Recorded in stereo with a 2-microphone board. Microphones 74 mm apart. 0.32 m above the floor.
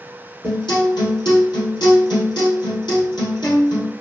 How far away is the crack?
I don't hear a crack.